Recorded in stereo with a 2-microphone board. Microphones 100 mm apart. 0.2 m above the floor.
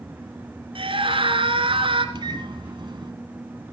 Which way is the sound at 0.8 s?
60° right (ahead or behind).